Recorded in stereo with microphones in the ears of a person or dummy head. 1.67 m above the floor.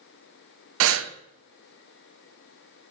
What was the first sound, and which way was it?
Breathing, 65° right (ahead or behind).